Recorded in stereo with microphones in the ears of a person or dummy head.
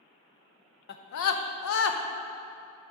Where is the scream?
55° left (ahead or behind), 0.8 m; by 2.0 s 80° left, 1.0 m.